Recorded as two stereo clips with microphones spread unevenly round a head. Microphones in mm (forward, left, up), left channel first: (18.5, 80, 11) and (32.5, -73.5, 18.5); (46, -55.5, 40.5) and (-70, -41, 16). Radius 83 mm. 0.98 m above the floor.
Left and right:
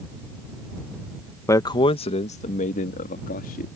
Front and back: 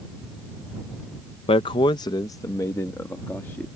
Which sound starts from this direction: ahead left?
A man speaking, at 1.5 s.